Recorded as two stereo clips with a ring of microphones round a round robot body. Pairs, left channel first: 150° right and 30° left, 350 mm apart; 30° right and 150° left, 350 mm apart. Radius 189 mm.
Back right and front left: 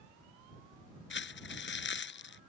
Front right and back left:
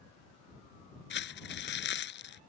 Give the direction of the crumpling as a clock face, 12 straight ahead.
3 o'clock.